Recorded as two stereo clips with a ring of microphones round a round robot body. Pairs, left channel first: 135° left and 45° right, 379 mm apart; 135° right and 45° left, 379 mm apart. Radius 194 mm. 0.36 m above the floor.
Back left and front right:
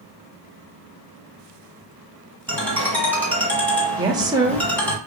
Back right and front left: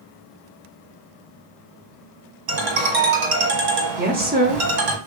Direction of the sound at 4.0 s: 20° left.